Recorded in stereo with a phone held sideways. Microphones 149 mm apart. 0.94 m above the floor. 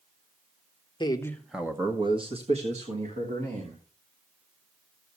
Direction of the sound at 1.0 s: 30° left (ahead or behind).